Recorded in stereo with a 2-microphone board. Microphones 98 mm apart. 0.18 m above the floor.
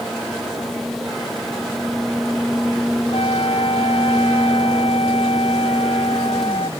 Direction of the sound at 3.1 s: 70° left (ahead or behind).